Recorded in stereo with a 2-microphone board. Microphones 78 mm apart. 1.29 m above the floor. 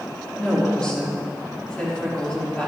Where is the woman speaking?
10° left (ahead or behind), 3 m.